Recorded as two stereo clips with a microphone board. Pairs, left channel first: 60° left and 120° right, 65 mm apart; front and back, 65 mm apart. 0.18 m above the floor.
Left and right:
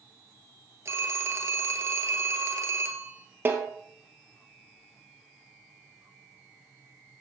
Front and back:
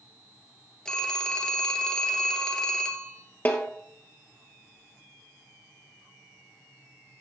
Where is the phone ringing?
75° right, 1.6 m.